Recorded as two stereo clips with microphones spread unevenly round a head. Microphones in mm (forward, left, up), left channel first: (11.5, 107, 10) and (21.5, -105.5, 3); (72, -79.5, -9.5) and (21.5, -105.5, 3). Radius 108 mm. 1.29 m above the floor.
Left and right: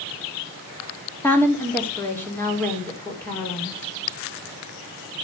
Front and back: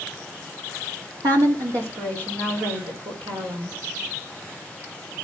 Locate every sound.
1.2 s a woman speaking: 175° left, 2.5 m